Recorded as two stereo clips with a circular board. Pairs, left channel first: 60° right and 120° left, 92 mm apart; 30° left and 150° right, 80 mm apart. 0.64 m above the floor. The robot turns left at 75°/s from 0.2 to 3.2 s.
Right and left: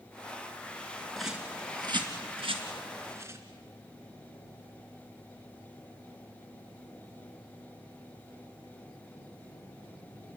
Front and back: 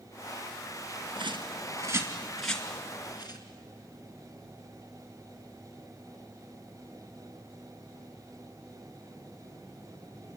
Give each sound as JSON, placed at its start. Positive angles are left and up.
{"t": 1.2, "sound": "a bird", "azimuth_deg": -145, "distance_m": 2.5}